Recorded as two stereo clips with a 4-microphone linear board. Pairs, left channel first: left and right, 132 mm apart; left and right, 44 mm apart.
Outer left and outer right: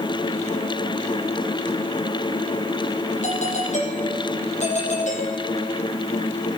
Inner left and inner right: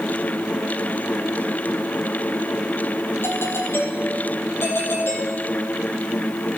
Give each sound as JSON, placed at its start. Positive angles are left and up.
{"t": 3.2, "sound": "a doorbell", "side_deg": 60, "distance_m": 5.0}